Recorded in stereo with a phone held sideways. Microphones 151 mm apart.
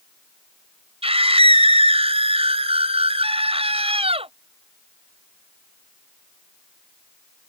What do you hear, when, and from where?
1.0 s a scream: 40° right (ahead or behind)